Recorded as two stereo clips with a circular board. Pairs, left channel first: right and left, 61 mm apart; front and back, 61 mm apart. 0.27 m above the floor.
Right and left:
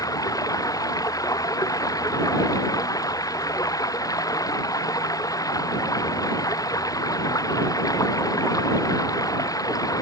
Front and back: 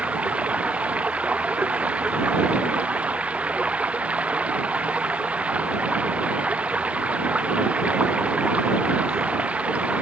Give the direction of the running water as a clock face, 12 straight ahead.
4 o'clock.